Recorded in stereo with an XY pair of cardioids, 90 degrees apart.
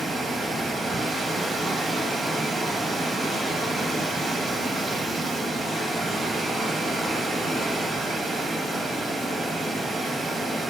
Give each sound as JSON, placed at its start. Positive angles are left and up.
{"t": 0.0, "sound": "running water", "azimuth_deg": -60, "distance_m": 2.5}